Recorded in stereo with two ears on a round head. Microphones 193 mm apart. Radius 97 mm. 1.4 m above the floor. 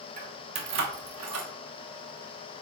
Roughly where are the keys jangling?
Right.